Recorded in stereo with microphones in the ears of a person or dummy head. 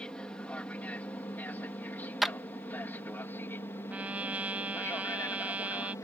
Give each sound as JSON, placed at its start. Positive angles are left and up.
{"t": 0.0, "sound": "an aircraft", "side_deg": 5}
{"t": 2.2, "sound": "a clap", "side_deg": 0}
{"t": 3.9, "sound": "a trumpet", "side_deg": -5}